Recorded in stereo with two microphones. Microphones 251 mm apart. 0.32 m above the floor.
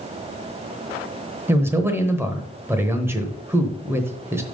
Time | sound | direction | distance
1.5 | a man speaking | 10° right (ahead or behind) | 1.0 m